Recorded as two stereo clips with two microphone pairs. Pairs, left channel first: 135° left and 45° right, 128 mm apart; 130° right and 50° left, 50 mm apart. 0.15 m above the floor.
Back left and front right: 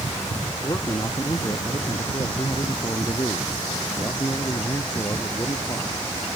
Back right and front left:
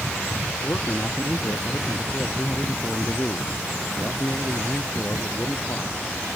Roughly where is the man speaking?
Behind.